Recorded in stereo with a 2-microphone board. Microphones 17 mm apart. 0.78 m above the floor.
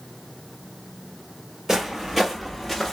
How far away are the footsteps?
About 1.2 m.